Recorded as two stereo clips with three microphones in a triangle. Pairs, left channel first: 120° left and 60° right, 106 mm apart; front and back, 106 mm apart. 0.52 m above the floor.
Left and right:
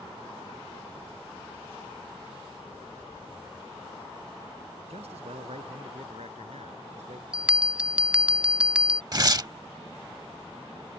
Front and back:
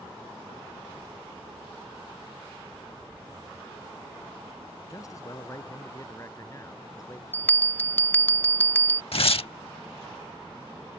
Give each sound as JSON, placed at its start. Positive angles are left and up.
{"t": 4.9, "sound": "a man speaking", "azimuth_deg": -60}
{"t": 7.3, "sound": "a bell", "azimuth_deg": -5}
{"t": 9.1, "sound": "tearing paper", "azimuth_deg": -10}